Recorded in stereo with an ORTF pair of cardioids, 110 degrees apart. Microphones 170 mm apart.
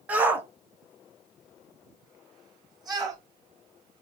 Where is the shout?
10° right, 1.3 m; by 3.2 s 25° right, 3 m.